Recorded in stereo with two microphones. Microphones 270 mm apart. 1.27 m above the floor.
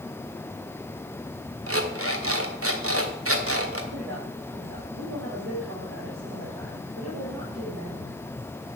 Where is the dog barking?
No dog barking in this recording.